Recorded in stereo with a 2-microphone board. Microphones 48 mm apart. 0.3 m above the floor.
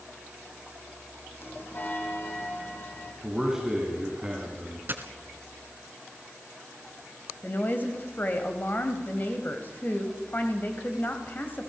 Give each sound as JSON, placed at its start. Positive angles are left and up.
{"t": 1.4, "sound": "a bell", "side_deg": 50, "distance_m": 3.5}
{"t": 3.2, "sound": "a man speaking", "side_deg": -15, "distance_m": 3.5}
{"t": 4.9, "sound": "a dropped coin", "side_deg": -40, "distance_m": 1.7}
{"t": 7.4, "sound": "a woman speaking", "side_deg": 40, "distance_m": 1.9}